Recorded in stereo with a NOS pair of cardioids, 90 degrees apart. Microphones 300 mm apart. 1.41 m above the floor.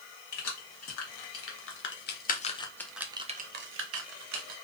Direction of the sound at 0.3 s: 60° left.